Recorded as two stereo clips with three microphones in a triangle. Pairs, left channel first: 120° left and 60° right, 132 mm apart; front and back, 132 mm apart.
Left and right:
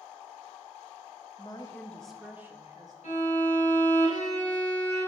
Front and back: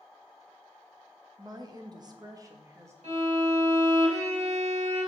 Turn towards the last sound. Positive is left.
turn(degrees=145)